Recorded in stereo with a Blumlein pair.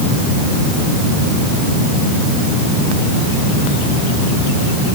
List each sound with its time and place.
Only background noise.